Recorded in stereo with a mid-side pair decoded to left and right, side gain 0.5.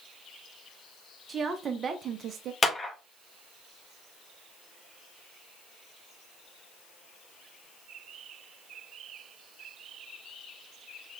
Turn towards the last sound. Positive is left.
turn(degrees=25)